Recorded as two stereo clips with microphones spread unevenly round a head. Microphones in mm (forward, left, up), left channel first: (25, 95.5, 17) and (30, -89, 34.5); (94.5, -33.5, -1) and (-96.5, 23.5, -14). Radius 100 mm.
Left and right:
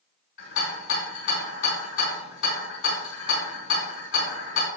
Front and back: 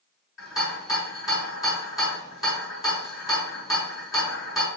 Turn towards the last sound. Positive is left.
turn(degrees=75)